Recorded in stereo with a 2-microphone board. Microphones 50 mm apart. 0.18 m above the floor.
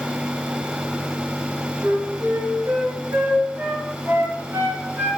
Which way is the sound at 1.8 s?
60° right (ahead or behind).